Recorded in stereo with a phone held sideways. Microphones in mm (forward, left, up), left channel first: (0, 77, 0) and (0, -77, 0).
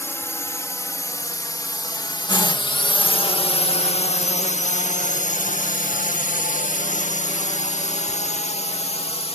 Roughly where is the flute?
I don't hear a flute.